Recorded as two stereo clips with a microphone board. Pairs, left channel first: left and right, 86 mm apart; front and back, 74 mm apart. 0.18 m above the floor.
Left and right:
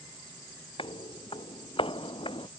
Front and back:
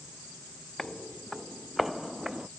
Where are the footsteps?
85° left; by 2.5 s 100° left.